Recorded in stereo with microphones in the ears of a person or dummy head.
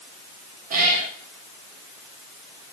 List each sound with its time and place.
0.7 s a cat meowing: 45° right (ahead or behind), 5.5 m